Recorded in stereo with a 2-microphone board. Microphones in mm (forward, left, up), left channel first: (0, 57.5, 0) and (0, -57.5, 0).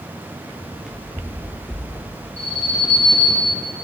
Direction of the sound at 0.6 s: 5° left (ahead or behind).